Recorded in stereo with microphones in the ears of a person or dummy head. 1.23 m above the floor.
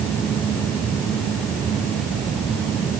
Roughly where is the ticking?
No ticking in this recording.